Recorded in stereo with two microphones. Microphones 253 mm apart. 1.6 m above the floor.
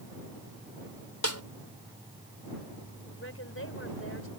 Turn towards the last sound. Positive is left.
turn(degrees=60)  # may be behind; listen again after turning